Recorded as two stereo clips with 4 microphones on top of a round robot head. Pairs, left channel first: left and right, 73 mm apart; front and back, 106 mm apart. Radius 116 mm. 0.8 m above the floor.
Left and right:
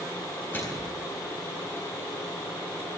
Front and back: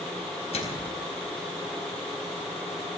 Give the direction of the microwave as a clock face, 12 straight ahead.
11 o'clock.